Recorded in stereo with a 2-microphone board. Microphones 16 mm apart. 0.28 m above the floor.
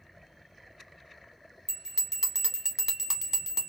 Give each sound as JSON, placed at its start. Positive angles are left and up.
{"t": 1.7, "sound": "a bell", "side_deg": -35, "distance_m": 1.0}